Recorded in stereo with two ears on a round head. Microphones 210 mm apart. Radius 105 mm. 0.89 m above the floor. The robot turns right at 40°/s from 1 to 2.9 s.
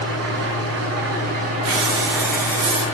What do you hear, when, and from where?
0.0 s an engine running: 55° right, 6 m; by 2.9 s 25° left, 6 m
1.6 s breathing: 70° right, 4 m; by 2.8 s 20° right, 4 m